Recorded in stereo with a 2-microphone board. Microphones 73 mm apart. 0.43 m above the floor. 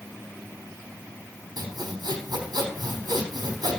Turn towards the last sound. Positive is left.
turn(degrees=-80)